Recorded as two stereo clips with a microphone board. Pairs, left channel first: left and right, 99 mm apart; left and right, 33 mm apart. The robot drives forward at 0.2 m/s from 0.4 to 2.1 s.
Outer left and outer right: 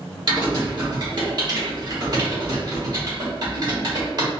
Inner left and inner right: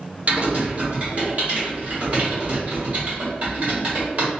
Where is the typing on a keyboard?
50° right (ahead or behind), 1.5 m; by 4.3 s 45° right (ahead or behind), 1.6 m.